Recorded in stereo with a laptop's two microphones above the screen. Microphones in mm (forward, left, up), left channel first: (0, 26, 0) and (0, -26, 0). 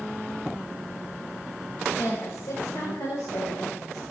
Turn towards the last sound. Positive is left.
turn(degrees=80)